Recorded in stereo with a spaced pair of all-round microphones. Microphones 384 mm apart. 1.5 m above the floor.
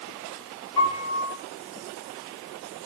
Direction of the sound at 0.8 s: 80° left.